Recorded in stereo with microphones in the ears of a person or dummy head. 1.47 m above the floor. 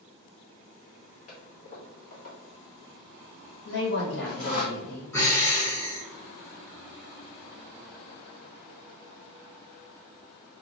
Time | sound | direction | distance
1.3 | a toilet flushing | 40° left (ahead or behind) | 1.5 m
3.6 | a woman speaking | 55° left (ahead or behind) | 2.0 m
5.1 | breathing | 15° left (ahead or behind) | 1.3 m